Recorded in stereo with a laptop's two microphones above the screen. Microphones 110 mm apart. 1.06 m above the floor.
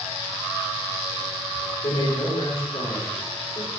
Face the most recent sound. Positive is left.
turn(degrees=85)